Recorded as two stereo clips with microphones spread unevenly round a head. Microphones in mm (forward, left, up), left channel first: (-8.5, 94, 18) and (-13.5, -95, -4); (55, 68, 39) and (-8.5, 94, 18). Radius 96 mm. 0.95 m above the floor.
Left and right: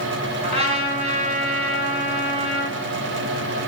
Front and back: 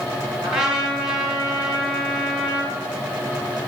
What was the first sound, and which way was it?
A trumpet, 150° right.